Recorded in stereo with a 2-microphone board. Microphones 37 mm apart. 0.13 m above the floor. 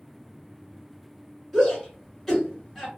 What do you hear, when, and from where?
1.5 s a shout: 5° left (ahead or behind), 1.9 m